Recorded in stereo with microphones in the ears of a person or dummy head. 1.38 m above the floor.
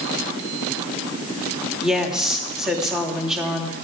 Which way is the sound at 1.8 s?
Centre (ahead or behind).